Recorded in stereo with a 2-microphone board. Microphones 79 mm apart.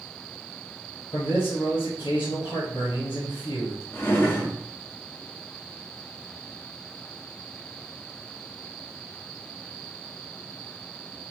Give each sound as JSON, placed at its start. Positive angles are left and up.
{"t": 1.1, "sound": "a man speaking", "side_deg": 75, "distance_m": 0.8}
{"t": 3.9, "sound": "a drawer", "side_deg": 30, "distance_m": 0.7}